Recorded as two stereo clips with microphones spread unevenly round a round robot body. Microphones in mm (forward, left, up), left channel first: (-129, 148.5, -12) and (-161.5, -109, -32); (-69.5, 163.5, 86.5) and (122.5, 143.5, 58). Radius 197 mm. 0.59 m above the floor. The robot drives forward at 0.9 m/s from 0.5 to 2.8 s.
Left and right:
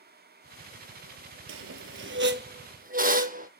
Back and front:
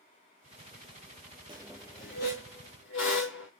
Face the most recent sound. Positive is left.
turn(degrees=-155)